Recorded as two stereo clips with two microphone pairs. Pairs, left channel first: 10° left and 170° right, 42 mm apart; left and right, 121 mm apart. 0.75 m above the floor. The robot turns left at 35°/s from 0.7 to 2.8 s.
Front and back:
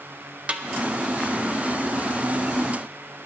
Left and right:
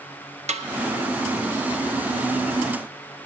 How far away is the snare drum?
About 0.6 m.